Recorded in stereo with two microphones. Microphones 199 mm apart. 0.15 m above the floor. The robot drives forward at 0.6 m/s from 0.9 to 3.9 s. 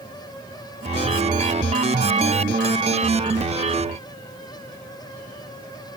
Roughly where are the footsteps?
I don't hear footsteps.